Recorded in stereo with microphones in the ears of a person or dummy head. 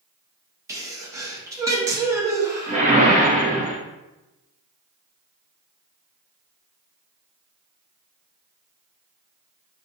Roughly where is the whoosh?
Right.